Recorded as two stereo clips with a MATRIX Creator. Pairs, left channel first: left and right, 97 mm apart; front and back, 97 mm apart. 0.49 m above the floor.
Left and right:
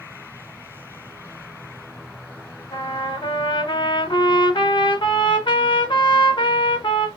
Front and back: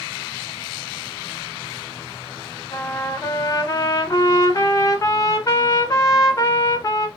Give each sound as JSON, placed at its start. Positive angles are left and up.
{"t": 2.7, "sound": "a trumpet", "azimuth_deg": 55, "distance_m": 0.7}